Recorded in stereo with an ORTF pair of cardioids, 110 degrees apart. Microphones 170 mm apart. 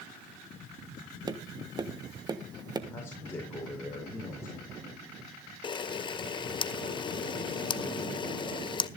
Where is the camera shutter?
30° left, 0.7 m.